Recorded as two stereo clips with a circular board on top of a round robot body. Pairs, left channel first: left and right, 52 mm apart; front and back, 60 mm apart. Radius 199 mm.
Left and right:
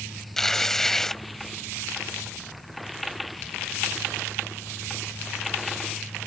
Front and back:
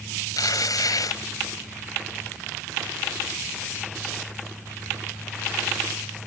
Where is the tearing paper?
5° left.